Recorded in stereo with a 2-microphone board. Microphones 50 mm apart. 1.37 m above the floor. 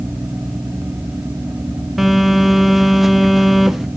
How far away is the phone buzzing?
About 0.8 m.